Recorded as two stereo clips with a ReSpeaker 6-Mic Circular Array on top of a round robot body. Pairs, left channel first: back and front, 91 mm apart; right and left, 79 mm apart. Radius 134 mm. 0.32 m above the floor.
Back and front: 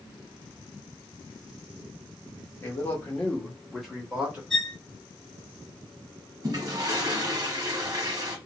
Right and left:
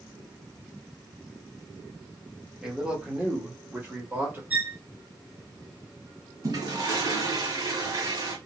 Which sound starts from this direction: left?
A violin, at 4.5 s.